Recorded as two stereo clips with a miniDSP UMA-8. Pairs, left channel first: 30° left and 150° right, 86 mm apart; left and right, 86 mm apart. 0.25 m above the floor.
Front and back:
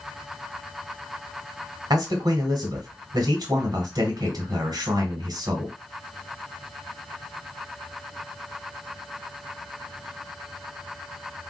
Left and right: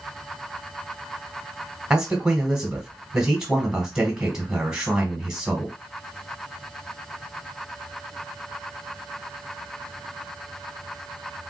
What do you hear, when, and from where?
1.9 s a man speaking: 170° right, 1.5 m